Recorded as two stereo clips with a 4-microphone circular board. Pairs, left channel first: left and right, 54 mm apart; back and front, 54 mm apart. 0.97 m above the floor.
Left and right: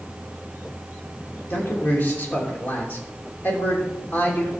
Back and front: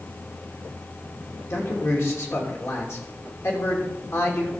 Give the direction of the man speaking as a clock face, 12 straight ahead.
7 o'clock.